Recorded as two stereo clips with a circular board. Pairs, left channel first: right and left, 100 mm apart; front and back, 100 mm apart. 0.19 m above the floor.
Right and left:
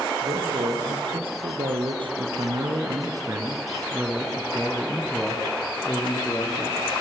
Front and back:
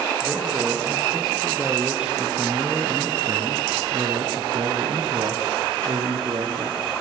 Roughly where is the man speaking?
Left.